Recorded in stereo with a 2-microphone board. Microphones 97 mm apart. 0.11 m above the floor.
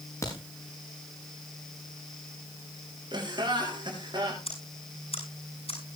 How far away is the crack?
About 7 m.